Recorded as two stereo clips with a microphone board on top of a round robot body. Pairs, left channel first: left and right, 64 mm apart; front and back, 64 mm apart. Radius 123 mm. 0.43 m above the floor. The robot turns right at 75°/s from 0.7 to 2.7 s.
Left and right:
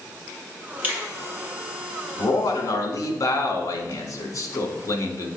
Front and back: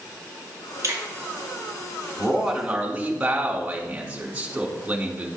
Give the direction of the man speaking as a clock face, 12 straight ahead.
10 o'clock.